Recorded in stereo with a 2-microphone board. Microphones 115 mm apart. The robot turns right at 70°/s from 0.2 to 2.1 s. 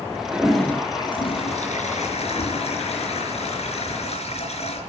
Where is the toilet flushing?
15° right, 4.5 m; by 4.8 s 115° left, 4.5 m.